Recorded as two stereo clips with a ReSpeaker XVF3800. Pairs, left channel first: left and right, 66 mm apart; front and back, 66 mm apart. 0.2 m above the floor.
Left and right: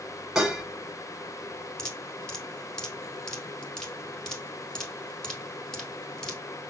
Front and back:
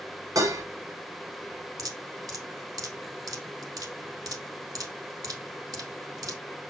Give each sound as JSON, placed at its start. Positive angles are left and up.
{"t": 0.3, "sound": "dishes clattering", "azimuth_deg": -170, "distance_m": 1.9}
{"t": 1.8, "sound": "dripping", "azimuth_deg": 170, "distance_m": 1.5}